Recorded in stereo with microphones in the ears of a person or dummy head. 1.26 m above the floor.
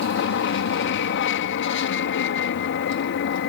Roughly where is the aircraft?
Left.